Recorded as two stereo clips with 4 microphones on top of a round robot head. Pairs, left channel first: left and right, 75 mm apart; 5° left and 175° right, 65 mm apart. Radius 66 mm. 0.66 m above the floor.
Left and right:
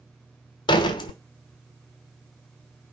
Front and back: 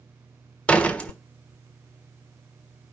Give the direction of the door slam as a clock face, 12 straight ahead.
9 o'clock.